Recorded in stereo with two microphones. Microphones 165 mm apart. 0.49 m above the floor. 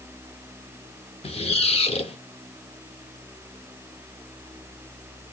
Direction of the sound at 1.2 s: 35° left (ahead or behind).